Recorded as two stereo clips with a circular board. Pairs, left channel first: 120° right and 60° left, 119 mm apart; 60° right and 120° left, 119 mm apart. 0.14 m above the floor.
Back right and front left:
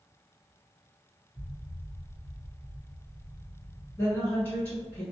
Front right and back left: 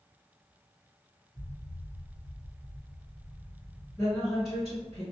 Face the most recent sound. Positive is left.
turn(degrees=-135)